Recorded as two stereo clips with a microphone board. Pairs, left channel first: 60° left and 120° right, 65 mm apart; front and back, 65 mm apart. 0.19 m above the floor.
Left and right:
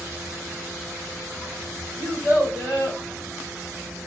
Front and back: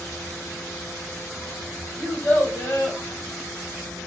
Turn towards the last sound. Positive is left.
turn(degrees=-70)